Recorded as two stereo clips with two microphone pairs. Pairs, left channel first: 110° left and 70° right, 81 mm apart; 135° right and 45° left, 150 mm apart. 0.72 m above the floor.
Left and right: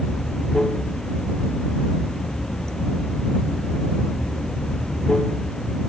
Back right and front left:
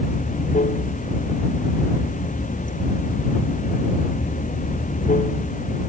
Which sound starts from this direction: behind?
Running water, at 0.0 s.